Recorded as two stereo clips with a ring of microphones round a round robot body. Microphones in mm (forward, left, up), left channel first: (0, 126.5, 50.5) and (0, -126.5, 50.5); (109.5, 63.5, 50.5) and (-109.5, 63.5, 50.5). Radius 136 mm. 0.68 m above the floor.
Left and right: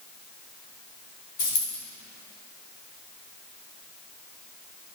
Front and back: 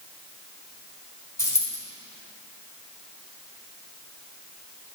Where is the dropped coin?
80° left, 1.9 m.